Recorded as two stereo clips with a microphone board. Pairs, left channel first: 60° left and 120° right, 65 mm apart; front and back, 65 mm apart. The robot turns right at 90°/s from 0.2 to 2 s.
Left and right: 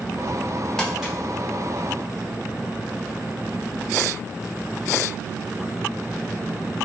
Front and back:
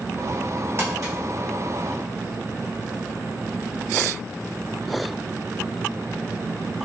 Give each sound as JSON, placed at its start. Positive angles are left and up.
{"t": 0.8, "sound": "crumpling", "azimuth_deg": 135, "distance_m": 1.4}